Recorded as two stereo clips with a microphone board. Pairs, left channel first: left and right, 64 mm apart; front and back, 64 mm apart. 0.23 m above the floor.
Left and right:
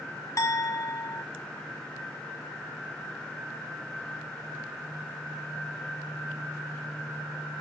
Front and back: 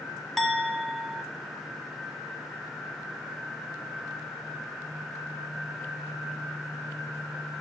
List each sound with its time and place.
0.4 s a clink: 85° left, 1.1 m